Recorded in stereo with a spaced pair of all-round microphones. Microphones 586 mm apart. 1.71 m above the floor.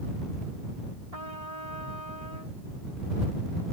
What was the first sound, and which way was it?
A trumpet, 80° right.